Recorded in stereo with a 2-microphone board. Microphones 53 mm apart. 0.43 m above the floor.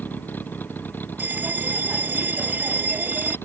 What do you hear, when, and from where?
0.0 s a vehicle: 35° left (ahead or behind); by 3.5 s 40° left (ahead or behind)
1.2 s a bell: 35° right (ahead or behind)